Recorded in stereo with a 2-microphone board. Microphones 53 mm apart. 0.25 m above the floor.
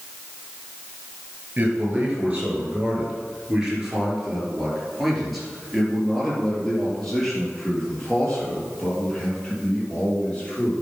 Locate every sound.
1.6 s a man speaking: 30° right (ahead or behind), 4 m; by 10.7 s 20° left (ahead or behind), 6.5 m